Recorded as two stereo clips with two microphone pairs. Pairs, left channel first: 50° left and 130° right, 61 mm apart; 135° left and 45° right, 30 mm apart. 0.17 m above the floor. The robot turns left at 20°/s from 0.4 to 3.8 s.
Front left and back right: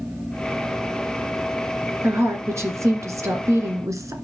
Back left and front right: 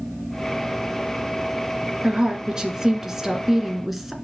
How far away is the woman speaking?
About 1.8 m.